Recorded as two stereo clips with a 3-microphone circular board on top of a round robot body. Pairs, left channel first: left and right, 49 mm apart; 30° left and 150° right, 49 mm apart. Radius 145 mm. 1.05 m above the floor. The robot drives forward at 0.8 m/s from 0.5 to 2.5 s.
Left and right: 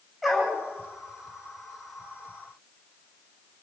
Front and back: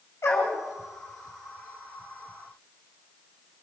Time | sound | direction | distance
0.2 | a dog barking | 5° right | 7.5 m